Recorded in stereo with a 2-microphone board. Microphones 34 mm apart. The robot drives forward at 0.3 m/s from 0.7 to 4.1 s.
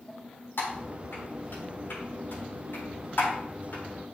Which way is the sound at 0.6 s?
80° left.